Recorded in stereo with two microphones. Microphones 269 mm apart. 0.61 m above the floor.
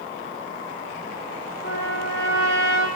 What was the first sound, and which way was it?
A trumpet, 45° left (ahead or behind).